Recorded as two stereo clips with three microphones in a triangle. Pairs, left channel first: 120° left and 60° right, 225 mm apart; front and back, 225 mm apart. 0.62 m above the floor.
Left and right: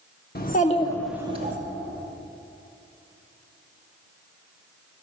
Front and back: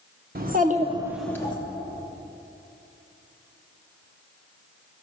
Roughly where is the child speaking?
Behind left.